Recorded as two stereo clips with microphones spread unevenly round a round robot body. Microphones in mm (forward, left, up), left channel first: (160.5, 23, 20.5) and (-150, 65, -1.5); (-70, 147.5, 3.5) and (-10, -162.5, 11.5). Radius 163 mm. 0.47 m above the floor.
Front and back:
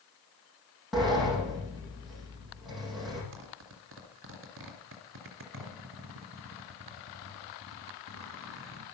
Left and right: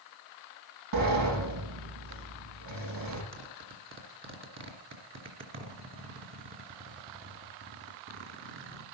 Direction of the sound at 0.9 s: 100° right.